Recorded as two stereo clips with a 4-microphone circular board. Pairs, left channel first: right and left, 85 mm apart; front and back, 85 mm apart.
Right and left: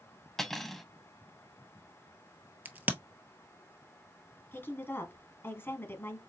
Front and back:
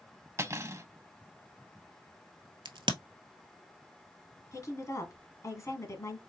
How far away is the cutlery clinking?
About 0.6 m.